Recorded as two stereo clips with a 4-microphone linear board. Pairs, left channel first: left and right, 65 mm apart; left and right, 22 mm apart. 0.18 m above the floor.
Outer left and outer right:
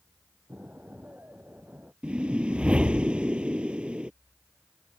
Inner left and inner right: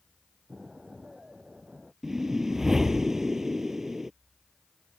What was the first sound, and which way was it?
An explosion, 25° right (ahead or behind).